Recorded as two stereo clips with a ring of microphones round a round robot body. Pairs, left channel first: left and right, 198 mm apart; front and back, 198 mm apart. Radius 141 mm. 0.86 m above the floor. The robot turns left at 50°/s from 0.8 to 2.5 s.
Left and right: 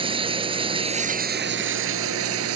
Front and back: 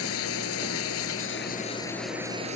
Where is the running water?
25° right; by 2.5 s 110° right.